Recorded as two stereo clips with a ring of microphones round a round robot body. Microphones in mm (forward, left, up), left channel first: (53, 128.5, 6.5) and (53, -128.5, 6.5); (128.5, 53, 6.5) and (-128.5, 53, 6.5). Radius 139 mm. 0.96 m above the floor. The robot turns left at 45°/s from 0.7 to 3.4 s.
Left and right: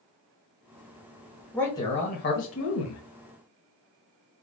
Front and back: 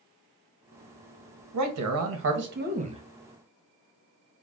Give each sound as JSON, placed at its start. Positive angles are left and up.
{"t": 1.5, "sound": "a man speaking", "azimuth_deg": 175, "distance_m": 1.1}